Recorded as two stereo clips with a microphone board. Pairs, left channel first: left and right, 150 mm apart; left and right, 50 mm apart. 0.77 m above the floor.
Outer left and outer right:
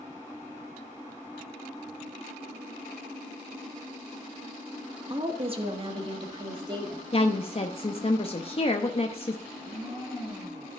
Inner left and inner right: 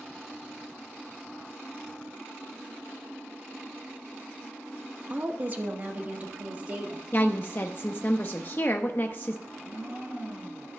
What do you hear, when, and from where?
5.1 s a woman speaking: 35° right (ahead or behind), 1.1 m
7.1 s a woman speaking: 40° left (ahead or behind), 0.6 m
9.5 s a blender: 30° right (ahead or behind), 4.5 m